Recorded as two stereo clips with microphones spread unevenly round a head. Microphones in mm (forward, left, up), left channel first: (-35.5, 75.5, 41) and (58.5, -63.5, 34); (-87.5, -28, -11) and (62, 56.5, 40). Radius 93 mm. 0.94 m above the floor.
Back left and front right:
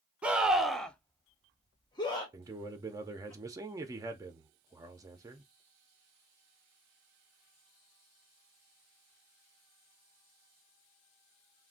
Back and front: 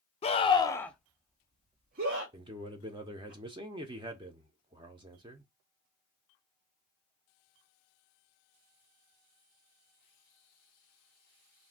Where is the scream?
135° right, 0.7 m; by 3.3 s 60° left, 1.3 m.